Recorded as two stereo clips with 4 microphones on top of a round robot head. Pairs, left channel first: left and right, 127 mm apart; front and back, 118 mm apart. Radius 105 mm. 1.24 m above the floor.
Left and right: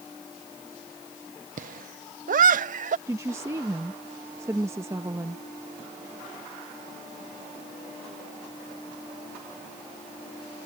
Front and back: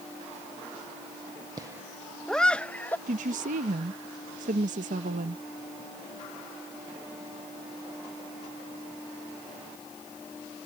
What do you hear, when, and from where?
1.6 s laughter: 115° right; by 3.0 s 80° right
3.1 s a woman speaking: 165° right